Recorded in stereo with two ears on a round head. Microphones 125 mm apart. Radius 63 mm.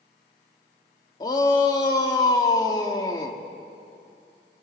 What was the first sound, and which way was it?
A shout, 25° left (ahead or behind).